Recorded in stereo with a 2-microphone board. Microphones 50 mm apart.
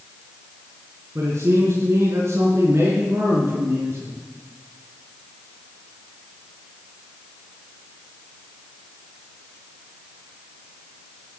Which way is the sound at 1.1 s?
70° right (ahead or behind).